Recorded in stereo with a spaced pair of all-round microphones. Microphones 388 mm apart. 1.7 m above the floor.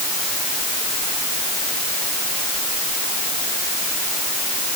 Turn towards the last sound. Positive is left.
No sound to turn to.